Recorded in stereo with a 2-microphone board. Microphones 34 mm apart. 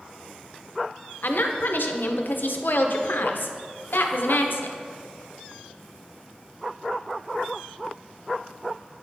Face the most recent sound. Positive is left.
turn(degrees=70)  # may be behind; listen again after turning